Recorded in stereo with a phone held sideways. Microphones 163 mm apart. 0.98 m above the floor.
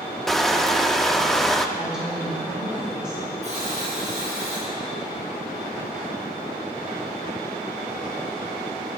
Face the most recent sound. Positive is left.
turn(degrees=-45)  # may be behind; listen again after turning